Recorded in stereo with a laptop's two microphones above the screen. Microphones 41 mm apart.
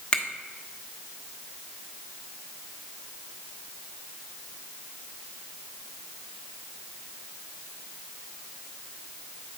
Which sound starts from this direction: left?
A finger snap, at 0.1 s.